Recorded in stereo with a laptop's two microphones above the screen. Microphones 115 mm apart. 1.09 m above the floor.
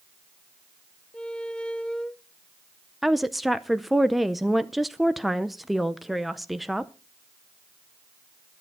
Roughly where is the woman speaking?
Centre.